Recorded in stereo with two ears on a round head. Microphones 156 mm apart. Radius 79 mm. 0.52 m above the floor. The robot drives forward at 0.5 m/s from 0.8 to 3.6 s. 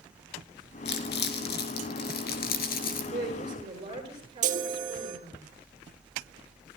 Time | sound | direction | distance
0.8 | crumpling | 70° left (ahead or behind) | 3.5 m
3.1 | a woman speaking | 30° right (ahead or behind) | 8 m
4.4 | a chime | 45° right (ahead or behind) | 2.0 m